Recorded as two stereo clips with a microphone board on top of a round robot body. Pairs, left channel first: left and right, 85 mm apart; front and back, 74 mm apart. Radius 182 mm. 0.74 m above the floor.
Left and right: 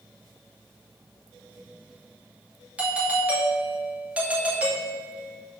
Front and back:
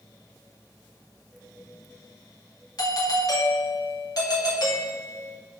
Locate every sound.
2.8 s a doorbell: 20° right, 2.5 m